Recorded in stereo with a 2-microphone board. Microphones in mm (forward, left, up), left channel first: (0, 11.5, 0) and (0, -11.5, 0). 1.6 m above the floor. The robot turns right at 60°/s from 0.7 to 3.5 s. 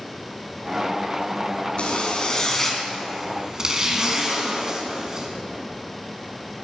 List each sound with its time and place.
1.8 s a zipper: 110° left, 2.5 m; by 5.3 s 150° right, 2.5 m